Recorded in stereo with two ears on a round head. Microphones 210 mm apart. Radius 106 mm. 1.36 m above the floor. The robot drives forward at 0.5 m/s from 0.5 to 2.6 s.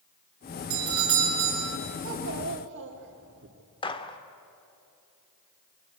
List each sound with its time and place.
0.7 s a doorbell: 55° right (ahead or behind), 6.5 m; by 1.8 s 60° right (ahead or behind), 6.5 m
2.0 s a child speaking: 60° right (ahead or behind), 2.5 m; by 3.5 s 55° right (ahead or behind), 2.5 m
3.8 s a gunshot: 20° left (ahead or behind), 1.5 m